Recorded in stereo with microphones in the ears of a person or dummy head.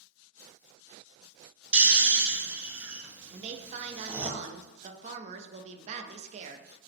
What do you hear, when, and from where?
1.7 s snoring: 10° right (ahead or behind), 0.5 m
3.3 s a woman speaking: 40° right (ahead or behind), 0.5 m